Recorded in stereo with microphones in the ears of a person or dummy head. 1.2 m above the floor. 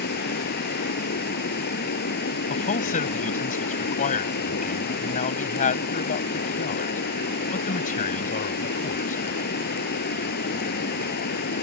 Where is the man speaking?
35° left (ahead or behind).